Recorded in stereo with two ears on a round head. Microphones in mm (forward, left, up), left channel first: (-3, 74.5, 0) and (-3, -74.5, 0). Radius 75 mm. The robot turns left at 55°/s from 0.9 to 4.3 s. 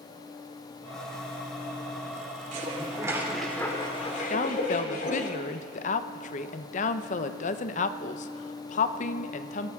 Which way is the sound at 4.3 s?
45° left (ahead or behind).